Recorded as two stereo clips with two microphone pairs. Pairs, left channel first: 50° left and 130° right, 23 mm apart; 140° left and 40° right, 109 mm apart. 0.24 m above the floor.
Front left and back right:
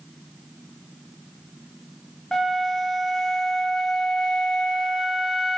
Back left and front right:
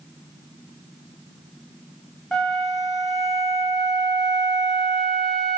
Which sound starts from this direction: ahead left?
A flute, at 2.3 s.